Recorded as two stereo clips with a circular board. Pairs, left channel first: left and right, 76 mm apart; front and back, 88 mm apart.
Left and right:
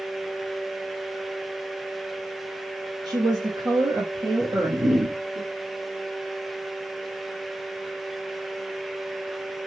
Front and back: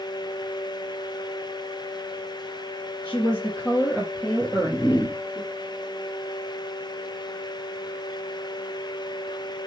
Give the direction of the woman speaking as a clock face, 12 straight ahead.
3 o'clock.